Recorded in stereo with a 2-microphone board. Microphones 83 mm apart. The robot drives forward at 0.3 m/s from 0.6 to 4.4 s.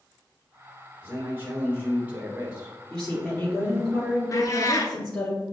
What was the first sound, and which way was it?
A man speaking, 25° right (ahead or behind).